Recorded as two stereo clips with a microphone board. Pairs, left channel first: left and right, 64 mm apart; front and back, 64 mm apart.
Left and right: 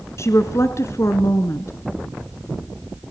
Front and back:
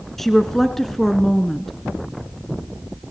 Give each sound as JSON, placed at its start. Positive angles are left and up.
{"t": 0.2, "sound": "a woman speaking", "azimuth_deg": 85, "distance_m": 1.7}